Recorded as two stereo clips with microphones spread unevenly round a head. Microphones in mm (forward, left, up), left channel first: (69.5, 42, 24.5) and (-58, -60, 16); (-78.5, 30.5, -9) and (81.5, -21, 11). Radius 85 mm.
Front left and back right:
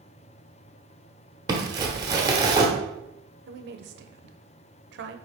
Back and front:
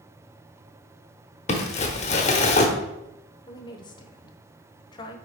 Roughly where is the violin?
No violin in this recording.